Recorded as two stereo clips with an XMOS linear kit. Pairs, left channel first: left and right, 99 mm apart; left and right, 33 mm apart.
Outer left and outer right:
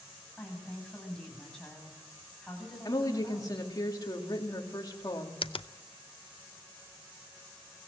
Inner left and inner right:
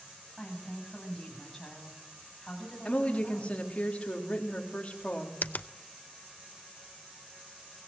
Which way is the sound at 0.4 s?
5° left (ahead or behind).